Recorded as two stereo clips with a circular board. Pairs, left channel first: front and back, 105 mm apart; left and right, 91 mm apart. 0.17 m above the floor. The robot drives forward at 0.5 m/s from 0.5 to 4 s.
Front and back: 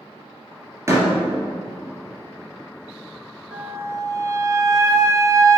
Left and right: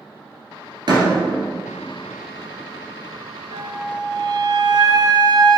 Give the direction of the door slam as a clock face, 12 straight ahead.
4 o'clock.